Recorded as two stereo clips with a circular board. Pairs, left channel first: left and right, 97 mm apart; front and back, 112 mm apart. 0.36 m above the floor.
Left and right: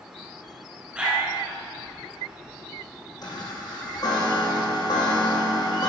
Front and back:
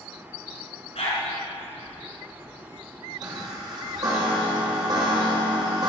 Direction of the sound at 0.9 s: 15° right.